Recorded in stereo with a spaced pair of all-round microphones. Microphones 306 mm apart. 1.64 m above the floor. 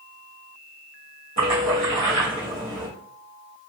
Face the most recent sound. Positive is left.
turn(degrees=-60)  # may be behind; listen again after turning